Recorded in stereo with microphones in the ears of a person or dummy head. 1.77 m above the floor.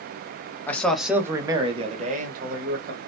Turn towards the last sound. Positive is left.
turn(degrees=-55)  # may be behind; listen again after turning